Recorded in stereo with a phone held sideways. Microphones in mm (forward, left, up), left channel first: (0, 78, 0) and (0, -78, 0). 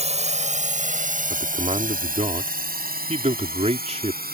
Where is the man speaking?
45° right (ahead or behind).